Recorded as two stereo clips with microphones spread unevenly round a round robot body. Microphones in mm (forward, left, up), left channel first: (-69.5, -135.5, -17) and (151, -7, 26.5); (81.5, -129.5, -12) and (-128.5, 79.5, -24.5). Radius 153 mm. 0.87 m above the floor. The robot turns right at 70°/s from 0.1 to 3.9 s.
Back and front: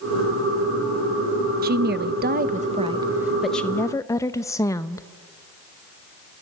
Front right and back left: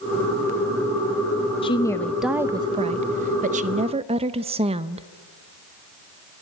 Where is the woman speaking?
10° left, 0.6 m; by 5.1 s 170° left, 0.6 m.